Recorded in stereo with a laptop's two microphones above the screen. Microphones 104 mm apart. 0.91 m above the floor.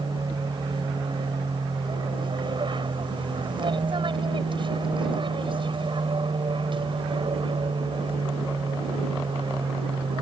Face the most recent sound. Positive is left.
turn(degrees=-55)  # may be behind; listen again after turning